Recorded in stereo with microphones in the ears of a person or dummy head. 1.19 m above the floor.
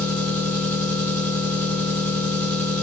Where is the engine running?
10° left (ahead or behind), 1.8 m.